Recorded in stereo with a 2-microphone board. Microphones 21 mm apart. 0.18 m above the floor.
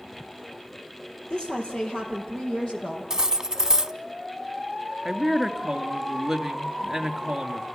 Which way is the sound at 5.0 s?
5° right (ahead or behind).